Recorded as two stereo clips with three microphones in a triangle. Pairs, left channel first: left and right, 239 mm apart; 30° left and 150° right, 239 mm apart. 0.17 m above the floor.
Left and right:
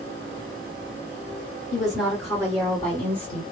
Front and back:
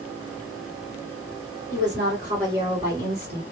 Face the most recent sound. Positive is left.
turn(degrees=140)